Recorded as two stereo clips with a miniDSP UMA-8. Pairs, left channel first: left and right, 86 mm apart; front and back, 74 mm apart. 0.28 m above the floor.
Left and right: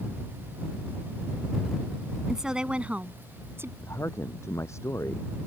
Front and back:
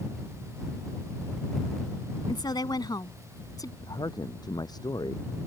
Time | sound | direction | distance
2.3 | a woman speaking | 5° right | ?
3.8 | a man speaking | 30° left | ?